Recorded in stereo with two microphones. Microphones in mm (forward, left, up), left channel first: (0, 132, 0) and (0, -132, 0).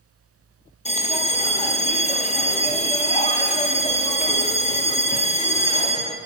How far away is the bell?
About 0.7 m.